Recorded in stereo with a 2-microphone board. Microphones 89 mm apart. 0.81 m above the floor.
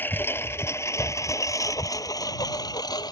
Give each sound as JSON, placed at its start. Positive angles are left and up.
{"t": 0.0, "sound": "a lawn mower", "side_deg": 25}